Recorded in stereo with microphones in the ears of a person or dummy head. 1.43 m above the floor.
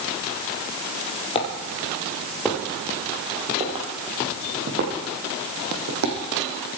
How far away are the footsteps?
About 2.5 m.